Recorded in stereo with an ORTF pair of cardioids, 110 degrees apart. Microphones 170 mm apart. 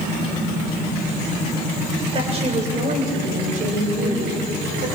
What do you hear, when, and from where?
2.1 s a woman speaking: 35° right, 6.5 m; by 4.9 s 65° right, 9 m